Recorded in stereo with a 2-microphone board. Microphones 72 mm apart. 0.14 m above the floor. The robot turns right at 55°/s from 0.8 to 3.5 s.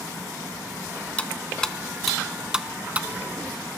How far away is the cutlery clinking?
About 0.7 m.